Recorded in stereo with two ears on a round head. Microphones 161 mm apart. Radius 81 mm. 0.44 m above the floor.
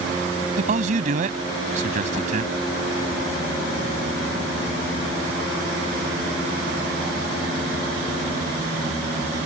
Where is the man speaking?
45° right (ahead or behind).